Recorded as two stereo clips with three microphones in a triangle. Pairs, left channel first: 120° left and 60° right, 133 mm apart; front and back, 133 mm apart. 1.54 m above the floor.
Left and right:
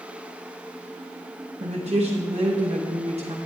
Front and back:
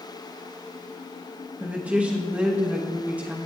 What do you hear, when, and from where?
1.6 s a woman speaking: 100° right, 1.2 m